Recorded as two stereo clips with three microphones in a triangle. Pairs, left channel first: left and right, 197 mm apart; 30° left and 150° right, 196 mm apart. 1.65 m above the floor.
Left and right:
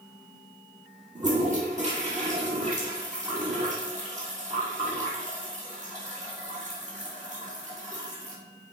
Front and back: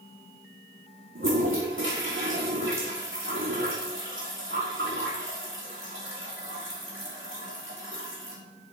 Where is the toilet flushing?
140° right, 5.5 m.